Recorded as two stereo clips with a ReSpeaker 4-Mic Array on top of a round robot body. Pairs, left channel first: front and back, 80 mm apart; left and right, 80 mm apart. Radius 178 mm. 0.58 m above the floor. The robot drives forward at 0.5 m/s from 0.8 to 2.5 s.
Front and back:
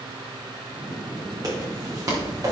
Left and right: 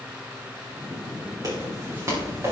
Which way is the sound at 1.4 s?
135° right.